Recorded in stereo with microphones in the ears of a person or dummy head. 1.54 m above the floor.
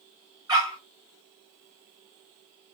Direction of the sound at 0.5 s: 25° right (ahead or behind).